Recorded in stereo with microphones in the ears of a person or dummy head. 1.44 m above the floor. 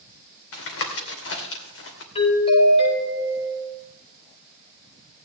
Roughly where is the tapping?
Left.